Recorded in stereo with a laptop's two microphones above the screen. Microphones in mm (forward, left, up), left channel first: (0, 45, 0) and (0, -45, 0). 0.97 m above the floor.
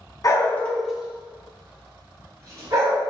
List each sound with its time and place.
0.2 s a dog barking: 40° left (ahead or behind), 0.6 m; by 3.0 s 40° right (ahead or behind), 2 m